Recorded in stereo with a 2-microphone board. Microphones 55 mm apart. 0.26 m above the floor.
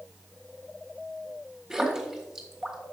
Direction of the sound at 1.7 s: 10° right (ahead or behind).